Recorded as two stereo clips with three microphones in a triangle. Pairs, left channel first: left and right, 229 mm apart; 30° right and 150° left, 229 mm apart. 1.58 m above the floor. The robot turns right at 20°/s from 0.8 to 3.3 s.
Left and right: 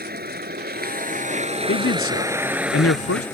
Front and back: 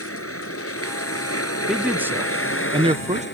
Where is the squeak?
No squeak in this recording.